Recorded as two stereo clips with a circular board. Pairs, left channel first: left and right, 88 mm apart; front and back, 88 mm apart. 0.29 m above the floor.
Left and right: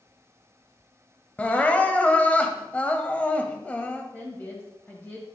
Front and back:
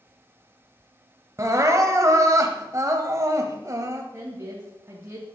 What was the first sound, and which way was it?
Crying, 155° left.